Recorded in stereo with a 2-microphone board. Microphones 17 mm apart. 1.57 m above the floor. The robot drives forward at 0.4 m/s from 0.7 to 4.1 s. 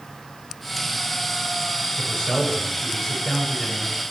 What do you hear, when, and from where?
2.0 s a man speaking: 25° left (ahead or behind), 8 m; by 4.0 s 20° left (ahead or behind), 8.5 m